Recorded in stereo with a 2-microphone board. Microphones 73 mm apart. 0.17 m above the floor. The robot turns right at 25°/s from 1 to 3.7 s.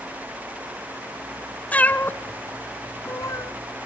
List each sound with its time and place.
1.7 s a cat meowing: 20° left (ahead or behind), 0.7 m; by 3.5 s 45° left (ahead or behind), 0.7 m